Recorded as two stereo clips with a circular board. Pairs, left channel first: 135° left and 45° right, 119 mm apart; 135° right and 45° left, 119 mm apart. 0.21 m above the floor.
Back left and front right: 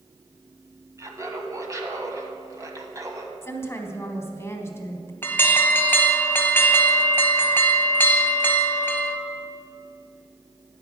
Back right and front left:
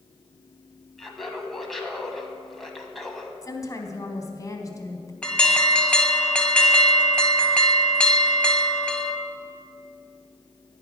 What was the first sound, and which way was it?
Laughter, 50° right.